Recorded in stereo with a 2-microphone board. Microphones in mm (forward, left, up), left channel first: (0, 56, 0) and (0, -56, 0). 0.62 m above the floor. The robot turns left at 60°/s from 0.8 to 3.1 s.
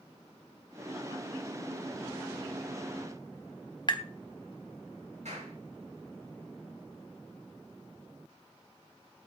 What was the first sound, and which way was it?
Tapping, 40° left (ahead or behind).